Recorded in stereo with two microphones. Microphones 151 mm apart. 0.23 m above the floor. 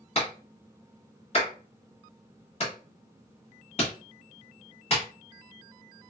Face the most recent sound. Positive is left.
turn(degrees=45)  # may be behind; listen again after turning